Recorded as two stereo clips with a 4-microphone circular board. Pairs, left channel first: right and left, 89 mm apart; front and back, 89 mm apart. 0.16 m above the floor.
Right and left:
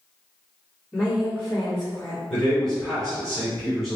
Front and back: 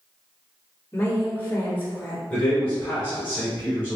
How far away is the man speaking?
About 1.7 m.